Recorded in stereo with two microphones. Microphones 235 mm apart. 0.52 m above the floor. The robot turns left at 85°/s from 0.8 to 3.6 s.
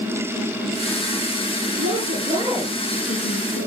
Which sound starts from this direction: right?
A woman speaking, at 1.8 s.